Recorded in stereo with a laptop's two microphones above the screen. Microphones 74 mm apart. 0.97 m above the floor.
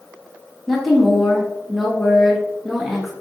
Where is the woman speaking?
Centre (ahead or behind), 1.4 m.